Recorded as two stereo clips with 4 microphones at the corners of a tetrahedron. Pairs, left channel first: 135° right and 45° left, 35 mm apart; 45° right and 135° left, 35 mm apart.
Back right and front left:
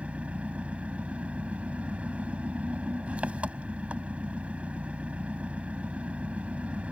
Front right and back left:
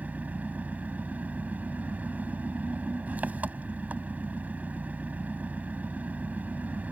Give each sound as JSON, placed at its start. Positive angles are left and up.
{"t": 0.0, "sound": "an engine running", "azimuth_deg": 95}